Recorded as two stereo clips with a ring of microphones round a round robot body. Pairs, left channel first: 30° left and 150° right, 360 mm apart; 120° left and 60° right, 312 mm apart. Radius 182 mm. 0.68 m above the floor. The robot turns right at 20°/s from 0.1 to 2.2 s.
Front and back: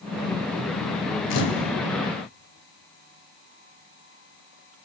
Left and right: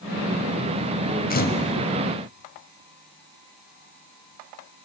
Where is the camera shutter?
60° left, 3.5 m; by 1.7 s 65° left, 3.5 m.